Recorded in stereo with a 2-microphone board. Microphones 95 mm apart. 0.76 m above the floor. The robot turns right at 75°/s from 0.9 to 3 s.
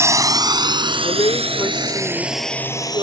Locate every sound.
0.0 s a drone: 30° right (ahead or behind); by 3.0 s 45° left (ahead or behind)
1.0 s a woman speaking: 95° left; by 3.0 s 115° right